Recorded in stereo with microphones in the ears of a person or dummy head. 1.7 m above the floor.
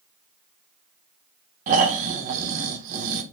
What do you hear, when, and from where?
1.7 s snoring: 50° right (ahead or behind), 0.5 m